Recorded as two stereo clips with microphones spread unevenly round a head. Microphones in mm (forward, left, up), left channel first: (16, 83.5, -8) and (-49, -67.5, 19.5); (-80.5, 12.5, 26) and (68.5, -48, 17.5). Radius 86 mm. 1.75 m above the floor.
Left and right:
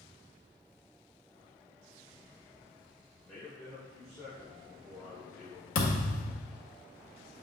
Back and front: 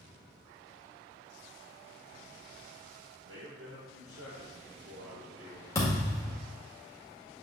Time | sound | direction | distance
3.2 | a man speaking | 25° right | 1.9 m
5.8 | a thud | 95° left | 1.9 m